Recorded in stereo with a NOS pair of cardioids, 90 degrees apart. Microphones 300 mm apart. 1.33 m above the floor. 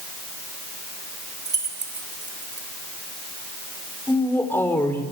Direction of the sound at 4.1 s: 5° left.